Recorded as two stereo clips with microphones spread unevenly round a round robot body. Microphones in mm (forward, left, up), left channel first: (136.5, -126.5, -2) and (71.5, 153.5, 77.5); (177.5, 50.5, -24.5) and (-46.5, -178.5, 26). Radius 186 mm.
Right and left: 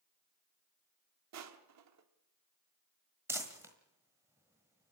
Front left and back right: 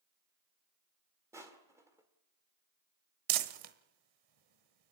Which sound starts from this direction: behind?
Crumpling, at 3.3 s.